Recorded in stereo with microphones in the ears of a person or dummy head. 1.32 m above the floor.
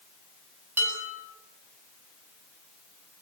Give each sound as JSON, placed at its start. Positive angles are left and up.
{"t": 0.8, "sound": "dishes clattering", "side_deg": -10, "distance_m": 8.5}